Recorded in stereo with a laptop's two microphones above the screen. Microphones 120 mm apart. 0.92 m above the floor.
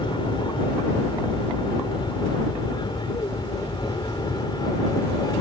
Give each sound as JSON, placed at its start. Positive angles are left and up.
{"t": 0.0, "sound": "an aircraft", "side_deg": 40}